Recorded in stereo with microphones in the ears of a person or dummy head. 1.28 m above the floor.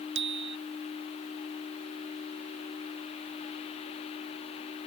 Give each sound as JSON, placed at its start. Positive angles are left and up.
{"t": 0.1, "sound": "a bicycle bell", "side_deg": -80}